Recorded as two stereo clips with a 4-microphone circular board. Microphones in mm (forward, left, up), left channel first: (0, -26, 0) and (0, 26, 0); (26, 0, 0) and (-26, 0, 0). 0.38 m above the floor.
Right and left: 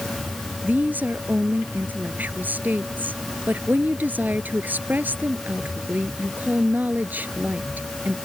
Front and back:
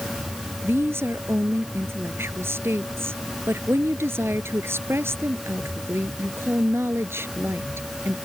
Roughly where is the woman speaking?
Behind left.